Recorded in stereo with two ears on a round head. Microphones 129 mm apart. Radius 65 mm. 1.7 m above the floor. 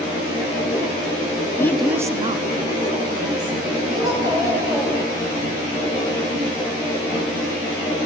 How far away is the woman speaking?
About 0.8 m.